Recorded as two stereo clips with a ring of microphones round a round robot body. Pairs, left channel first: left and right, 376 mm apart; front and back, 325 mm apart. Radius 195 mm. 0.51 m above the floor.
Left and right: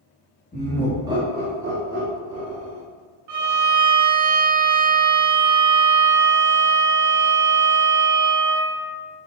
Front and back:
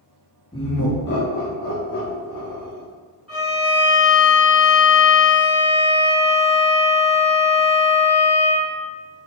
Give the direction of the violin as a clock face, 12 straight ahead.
3 o'clock.